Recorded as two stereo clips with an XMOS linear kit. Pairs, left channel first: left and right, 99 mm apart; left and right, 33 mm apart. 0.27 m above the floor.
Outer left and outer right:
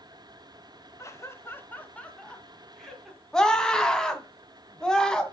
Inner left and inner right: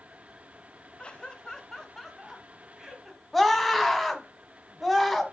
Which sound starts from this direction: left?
Laughter, at 1.0 s.